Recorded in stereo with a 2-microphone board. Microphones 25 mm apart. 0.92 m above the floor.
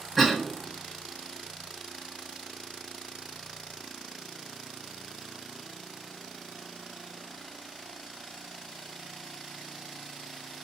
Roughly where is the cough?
Centre.